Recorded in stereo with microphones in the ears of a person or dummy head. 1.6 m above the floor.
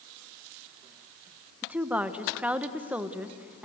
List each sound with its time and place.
1.6 s a woman speaking: 5° right (ahead or behind), 1.3 m